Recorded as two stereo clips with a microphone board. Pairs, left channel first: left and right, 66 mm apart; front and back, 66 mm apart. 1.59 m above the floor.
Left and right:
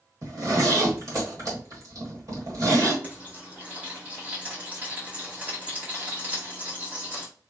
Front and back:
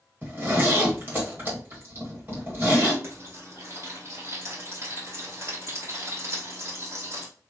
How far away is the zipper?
About 1.9 m.